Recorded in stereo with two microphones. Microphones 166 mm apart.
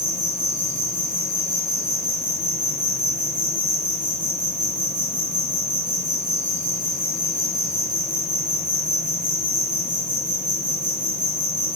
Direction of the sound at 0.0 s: 50° right (ahead or behind).